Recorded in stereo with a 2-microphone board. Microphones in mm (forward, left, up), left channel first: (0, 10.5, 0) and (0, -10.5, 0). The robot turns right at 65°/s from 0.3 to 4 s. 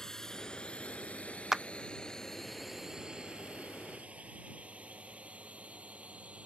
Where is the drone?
25° left (ahead or behind); by 6.5 s 80° right.